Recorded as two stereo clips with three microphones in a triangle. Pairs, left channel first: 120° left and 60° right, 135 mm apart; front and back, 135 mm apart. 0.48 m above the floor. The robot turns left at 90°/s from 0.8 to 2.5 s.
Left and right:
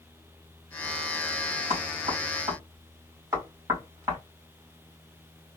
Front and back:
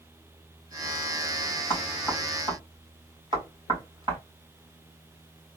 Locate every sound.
1.7 s knocking: 60° right, 3 m; by 4.2 s 130° right, 3 m